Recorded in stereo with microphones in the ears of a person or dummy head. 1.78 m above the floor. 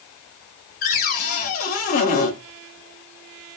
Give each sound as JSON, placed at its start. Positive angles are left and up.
{"t": 0.8, "sound": "a cupboard door", "side_deg": 50, "distance_m": 0.7}